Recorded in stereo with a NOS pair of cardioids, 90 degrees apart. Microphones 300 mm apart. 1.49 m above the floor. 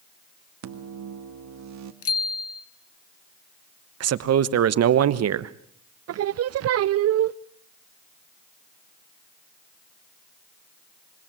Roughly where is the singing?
Ahead right.